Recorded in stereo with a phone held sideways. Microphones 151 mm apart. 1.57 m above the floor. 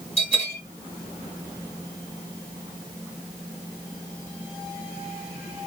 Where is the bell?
45° left (ahead or behind), 1.9 m.